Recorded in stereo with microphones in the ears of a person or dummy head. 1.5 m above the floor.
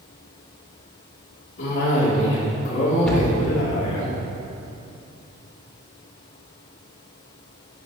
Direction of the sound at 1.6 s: 70° left (ahead or behind).